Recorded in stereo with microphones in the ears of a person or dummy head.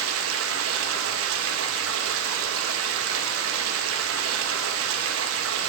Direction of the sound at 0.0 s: 85° right.